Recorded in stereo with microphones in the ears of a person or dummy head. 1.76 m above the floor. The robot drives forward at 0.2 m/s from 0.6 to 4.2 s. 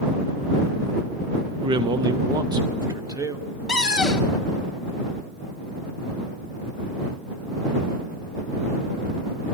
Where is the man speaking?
20° right (ahead or behind), 0.5 m; by 3.4 s 15° right (ahead or behind), 0.8 m.